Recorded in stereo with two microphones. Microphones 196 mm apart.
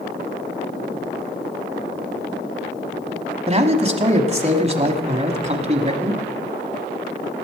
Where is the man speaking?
35° right (ahead or behind), 1.1 m.